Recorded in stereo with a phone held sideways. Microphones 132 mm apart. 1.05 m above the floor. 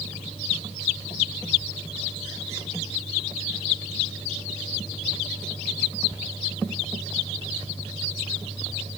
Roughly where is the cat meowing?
No cat meowing in this recording.